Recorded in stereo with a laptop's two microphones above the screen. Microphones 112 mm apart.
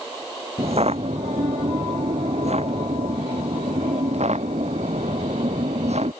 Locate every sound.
0.6 s footsteps: 65° right (ahead or behind); by 6.1 s 75° right (ahead or behind)